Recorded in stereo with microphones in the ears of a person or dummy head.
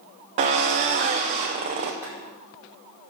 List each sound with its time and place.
0.4 s a drill: 30° right (ahead or behind), 0.8 m
2.0 s boiling: 15° right (ahead or behind), 4.5 m